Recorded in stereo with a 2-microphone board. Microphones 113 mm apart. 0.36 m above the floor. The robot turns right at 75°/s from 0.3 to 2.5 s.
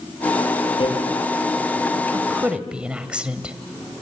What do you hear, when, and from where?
0.8 s hammering: 50° left (ahead or behind), 7 m; by 0.9 s 60° left (ahead or behind), 7 m
2.1 s a woman speaking: 30° right (ahead or behind), 1.7 m; by 3.5 s 10° right (ahead or behind), 1.7 m